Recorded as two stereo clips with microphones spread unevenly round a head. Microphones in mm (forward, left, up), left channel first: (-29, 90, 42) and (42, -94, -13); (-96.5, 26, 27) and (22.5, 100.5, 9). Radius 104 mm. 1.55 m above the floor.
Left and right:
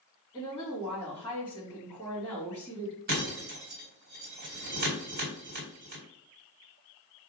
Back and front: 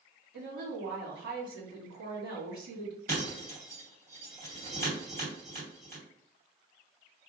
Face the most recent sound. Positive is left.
turn(degrees=-20)